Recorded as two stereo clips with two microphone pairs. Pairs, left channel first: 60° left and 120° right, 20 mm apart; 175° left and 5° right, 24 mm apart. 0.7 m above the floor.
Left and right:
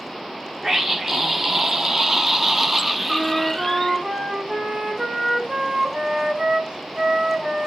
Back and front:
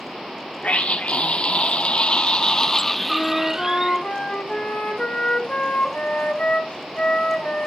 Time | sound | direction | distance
0.6 | a scream | straight behind | 1.4 m
3.1 | a flute | 155° right | 2.5 m